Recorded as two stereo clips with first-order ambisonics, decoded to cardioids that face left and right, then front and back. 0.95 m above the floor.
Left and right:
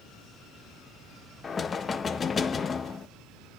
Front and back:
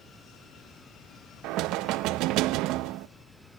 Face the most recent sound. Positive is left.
turn(degrees=155)